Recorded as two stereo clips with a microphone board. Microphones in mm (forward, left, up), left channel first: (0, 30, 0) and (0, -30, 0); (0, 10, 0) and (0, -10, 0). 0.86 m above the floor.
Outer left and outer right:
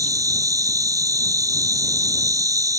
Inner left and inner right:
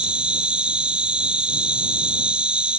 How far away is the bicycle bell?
I don't hear a bicycle bell.